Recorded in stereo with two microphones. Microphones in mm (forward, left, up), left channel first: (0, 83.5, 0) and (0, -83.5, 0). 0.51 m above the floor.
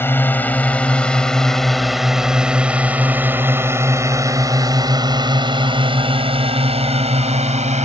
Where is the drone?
15° left (ahead or behind); by 7.8 s 45° right (ahead or behind).